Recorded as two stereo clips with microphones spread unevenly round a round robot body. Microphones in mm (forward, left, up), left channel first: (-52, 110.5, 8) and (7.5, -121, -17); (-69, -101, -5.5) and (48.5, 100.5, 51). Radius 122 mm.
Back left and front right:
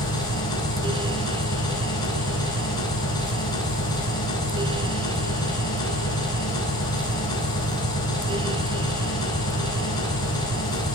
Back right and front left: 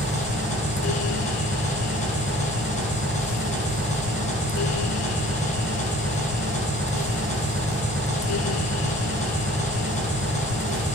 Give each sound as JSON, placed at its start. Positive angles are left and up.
{"t": 0.0, "sound": "an engine running", "azimuth_deg": 180, "distance_m": 10.0}